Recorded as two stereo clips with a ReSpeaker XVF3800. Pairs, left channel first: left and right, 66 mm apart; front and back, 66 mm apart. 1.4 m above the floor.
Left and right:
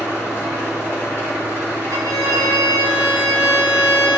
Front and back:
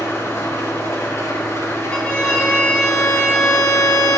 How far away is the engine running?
About 3.5 m.